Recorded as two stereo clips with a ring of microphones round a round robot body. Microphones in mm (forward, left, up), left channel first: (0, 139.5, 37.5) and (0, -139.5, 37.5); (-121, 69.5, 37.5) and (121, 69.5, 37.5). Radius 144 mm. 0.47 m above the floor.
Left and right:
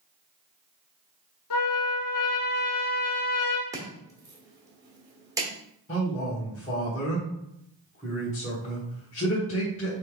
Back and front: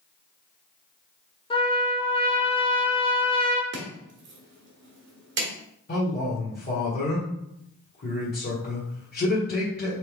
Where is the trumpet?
110° left, 0.9 m.